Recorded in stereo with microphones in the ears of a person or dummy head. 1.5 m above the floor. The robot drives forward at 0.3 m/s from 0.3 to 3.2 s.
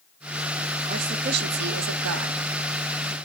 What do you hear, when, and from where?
0.9 s a woman speaking: 45° right (ahead or behind), 0.6 m; by 2.4 s 85° right, 0.5 m